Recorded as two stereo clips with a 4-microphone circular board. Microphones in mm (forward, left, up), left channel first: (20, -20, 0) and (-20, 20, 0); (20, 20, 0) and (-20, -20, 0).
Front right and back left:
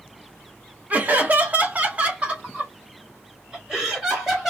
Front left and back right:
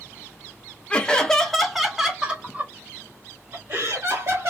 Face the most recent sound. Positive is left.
turn(degrees=-140)